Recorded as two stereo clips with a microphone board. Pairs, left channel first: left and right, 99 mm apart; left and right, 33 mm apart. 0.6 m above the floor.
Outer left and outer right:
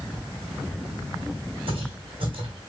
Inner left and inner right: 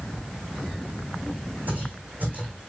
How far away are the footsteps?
About 2 m.